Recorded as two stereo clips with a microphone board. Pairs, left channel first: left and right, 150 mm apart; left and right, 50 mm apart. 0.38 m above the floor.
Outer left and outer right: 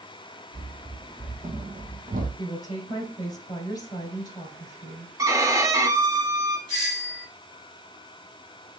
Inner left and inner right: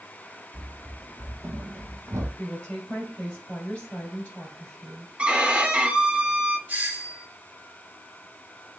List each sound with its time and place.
0.5 s running footsteps: 30° right (ahead or behind), 2.0 m; by 2.3 s 70° right (ahead or behind), 0.9 m
2.4 s a woman speaking: 25° left (ahead or behind), 1.8 m
5.2 s a violin: 20° right (ahead or behind), 0.6 m
6.7 s a doorbell: 30° right (ahead or behind), 2.5 m